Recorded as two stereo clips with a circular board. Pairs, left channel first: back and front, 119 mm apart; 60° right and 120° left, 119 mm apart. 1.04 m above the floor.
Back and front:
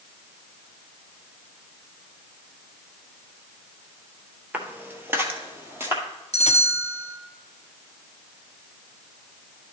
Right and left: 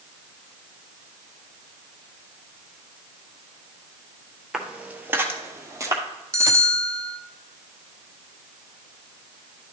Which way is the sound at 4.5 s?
45° left.